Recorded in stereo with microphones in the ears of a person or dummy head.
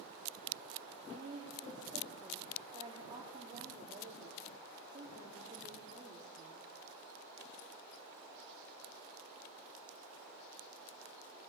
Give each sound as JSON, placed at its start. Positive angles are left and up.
{"t": 1.1, "sound": "a woman speaking", "side_deg": -25, "distance_m": 4.0}